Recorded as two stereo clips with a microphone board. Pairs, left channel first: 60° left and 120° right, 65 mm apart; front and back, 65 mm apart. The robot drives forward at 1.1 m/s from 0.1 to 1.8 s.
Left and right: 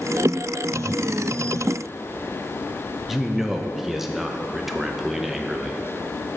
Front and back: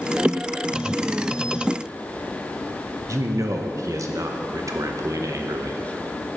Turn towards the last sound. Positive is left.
turn(degrees=155)